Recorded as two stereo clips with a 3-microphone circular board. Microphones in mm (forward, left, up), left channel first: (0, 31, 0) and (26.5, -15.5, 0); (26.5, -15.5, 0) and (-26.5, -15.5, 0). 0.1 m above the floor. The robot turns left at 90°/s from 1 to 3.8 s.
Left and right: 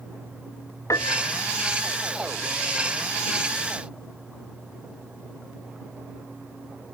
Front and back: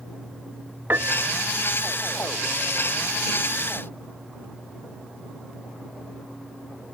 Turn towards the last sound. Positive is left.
turn(degrees=-120)